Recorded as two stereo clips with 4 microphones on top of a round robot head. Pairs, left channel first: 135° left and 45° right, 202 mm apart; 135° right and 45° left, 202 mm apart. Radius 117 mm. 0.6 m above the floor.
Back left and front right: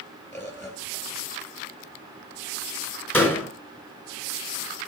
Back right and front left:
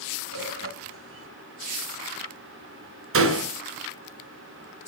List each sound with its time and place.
0.3 s a bird: 60° left, 3 m
3.1 s a door slam: 55° left, 2.5 m